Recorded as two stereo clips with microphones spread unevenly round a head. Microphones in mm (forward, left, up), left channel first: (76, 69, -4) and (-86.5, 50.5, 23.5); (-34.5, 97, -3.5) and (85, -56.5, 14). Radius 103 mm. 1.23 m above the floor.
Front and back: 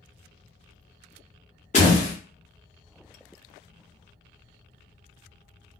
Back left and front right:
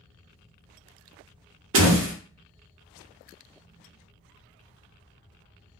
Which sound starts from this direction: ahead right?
A door slam, at 1.7 s.